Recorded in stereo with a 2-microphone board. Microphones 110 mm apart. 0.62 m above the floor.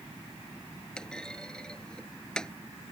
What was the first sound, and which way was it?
A clunk, 5° left (ahead or behind).